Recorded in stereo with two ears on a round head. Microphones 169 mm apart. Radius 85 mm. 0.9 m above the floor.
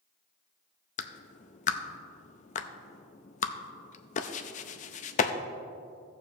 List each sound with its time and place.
1.0 s a clap: 35° left (ahead or behind), 0.5 m